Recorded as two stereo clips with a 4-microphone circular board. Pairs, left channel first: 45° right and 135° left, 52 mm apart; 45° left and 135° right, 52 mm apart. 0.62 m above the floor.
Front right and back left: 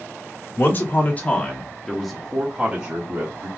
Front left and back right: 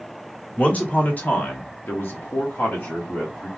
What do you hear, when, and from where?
0.6 s a man speaking: 15° right, 1.6 m; by 3.5 s 90° left, 1.7 m